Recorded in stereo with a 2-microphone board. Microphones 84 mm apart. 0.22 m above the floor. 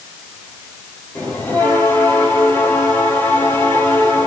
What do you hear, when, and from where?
1.1 s a bell: 25° left (ahead or behind), 4.5 m